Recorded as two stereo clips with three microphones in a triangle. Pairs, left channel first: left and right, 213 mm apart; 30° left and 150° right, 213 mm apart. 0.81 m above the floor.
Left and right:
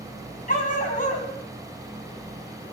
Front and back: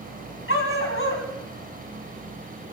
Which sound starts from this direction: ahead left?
A dog barking, at 0.5 s.